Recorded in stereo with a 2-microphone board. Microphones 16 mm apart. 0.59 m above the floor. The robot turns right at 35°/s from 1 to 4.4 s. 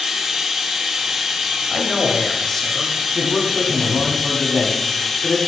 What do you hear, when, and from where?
0.0 s running water: 130° right, 1.1 m; by 5.5 s 10° right, 1.1 m
1.7 s a man speaking: 10° left, 0.8 m; by 4.2 s 95° left, 0.8 m
3.1 s a man speaking: 20° left, 1.1 m; by 5.4 s 65° left, 1.1 m